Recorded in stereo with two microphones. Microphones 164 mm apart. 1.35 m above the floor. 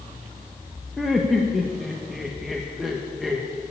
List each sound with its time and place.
1.0 s laughter: centre (ahead or behind), 1.0 m